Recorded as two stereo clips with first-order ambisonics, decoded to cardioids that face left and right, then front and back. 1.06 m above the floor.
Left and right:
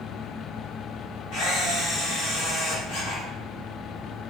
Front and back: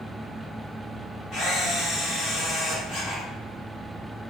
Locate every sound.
1.3 s a camera shutter: 60° left, 2.0 m